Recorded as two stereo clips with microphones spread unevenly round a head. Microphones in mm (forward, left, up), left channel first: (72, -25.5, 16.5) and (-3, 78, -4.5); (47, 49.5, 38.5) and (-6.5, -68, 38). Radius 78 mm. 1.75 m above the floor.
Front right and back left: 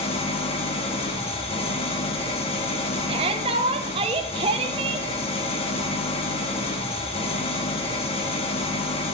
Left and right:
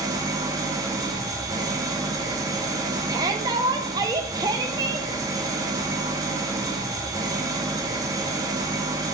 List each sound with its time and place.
0.0 s an engine running: 55° right, 1.6 m
3.1 s a shout: straight behind, 1.0 m